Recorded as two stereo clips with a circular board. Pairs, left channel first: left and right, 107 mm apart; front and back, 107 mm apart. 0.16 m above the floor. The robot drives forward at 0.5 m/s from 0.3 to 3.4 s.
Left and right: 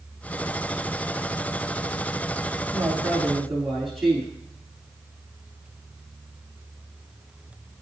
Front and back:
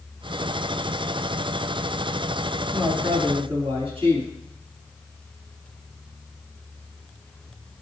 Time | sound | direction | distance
2.7 | a woman speaking | straight behind | 3 m